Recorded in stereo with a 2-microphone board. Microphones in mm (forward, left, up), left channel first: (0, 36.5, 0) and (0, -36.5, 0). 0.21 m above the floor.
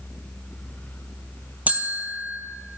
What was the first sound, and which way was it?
A bell, 25° right (ahead or behind).